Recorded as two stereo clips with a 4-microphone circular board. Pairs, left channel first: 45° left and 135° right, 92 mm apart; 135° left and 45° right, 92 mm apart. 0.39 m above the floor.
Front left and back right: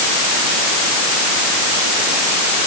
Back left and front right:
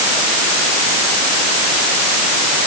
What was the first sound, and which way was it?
Only background noise.